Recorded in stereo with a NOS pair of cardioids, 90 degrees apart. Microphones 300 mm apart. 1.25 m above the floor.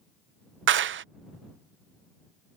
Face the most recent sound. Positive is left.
turn(degrees=-45)